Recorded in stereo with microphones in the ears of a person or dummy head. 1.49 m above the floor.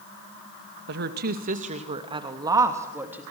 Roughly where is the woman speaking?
Right.